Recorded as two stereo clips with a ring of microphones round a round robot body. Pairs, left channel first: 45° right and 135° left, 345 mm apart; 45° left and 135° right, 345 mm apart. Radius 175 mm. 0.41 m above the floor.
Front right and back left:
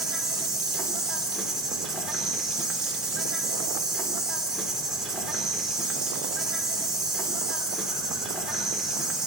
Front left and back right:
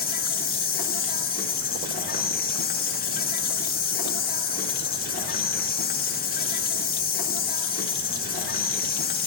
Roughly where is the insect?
Ahead left.